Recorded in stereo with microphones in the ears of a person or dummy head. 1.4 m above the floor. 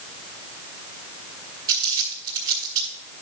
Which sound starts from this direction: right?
Crumpling, at 1.7 s.